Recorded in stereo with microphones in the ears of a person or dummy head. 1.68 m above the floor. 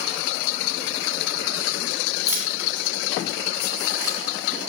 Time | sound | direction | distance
2.3 | keys jangling | 20° right (ahead or behind) | 5 m